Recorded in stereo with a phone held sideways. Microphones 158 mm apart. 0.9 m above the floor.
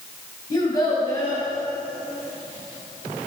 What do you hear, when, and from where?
0.5 s a child speaking: 25° left (ahead or behind), 3.5 m